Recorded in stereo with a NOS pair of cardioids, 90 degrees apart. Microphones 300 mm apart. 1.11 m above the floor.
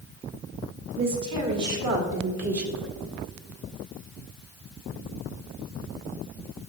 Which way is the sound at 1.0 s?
65° right.